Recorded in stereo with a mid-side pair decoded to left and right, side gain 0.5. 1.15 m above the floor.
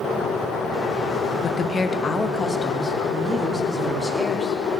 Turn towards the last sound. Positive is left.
turn(degrees=10)